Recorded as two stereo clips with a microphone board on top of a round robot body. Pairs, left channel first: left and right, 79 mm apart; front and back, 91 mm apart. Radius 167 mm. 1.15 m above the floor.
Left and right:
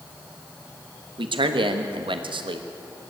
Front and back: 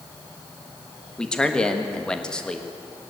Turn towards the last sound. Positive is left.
turn(degrees=-85)